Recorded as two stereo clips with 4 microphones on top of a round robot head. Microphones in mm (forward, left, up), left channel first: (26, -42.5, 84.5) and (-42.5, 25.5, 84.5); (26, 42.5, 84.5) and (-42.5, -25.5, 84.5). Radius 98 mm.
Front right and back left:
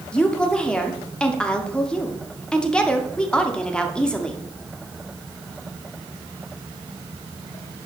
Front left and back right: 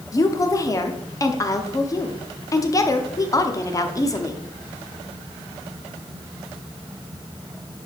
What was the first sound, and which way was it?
A woman speaking, 30° left.